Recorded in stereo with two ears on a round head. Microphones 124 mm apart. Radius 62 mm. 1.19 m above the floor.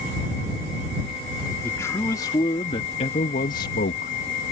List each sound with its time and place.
1.6 s a man speaking: 20° left (ahead or behind); by 4.1 s 75° left (ahead or behind)